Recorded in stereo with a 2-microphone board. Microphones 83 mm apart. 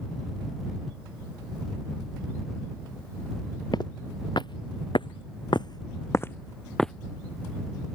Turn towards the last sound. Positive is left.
turn(degrees=5)  # may be behind; listen again after turning